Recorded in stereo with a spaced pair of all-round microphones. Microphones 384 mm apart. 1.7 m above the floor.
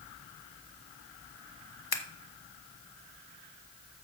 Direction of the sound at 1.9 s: 65° left (ahead or behind).